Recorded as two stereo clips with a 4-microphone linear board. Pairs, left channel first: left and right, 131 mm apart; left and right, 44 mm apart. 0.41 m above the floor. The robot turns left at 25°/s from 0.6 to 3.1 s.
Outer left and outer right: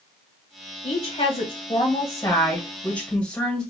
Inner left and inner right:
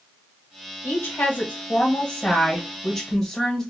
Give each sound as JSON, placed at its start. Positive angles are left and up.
{"t": 0.8, "sound": "a woman speaking", "azimuth_deg": 65, "distance_m": 1.9}